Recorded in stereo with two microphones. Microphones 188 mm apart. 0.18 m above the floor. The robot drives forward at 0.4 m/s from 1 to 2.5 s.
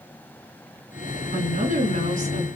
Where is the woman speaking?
45° right (ahead or behind), 2.5 m; by 2.5 s 40° right (ahead or behind), 2.5 m.